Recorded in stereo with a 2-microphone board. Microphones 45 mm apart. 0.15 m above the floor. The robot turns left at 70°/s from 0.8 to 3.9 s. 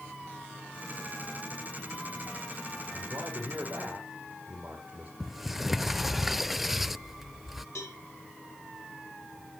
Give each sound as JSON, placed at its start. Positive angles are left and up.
{"t": 2.9, "sound": "a man speaking", "azimuth_deg": -75, "distance_m": 4.0}
{"t": 5.2, "sound": "a sliding door", "side_deg": -5, "distance_m": 0.6}
{"t": 7.8, "sound": "a cowbell", "side_deg": 85, "distance_m": 9.5}